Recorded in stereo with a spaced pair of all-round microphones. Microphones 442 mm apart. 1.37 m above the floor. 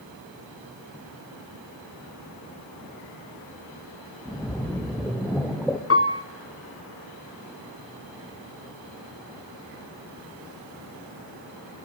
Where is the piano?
30° left (ahead or behind), 0.5 m.